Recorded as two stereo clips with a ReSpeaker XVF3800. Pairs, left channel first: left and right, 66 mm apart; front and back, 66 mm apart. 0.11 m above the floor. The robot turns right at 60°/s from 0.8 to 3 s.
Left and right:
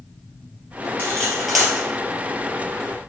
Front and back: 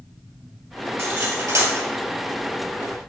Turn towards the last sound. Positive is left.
turn(degrees=-90)